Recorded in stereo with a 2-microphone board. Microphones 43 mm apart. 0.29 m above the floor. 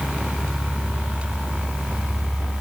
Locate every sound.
Only background noise.